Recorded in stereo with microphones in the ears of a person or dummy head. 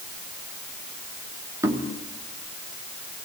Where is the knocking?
15° right (ahead or behind), 3 m.